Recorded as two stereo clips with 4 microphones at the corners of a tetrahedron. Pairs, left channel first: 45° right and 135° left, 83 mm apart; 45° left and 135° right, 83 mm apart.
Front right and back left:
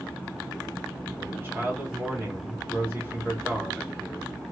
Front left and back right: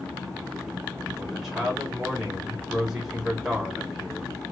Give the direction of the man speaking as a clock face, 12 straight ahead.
7 o'clock.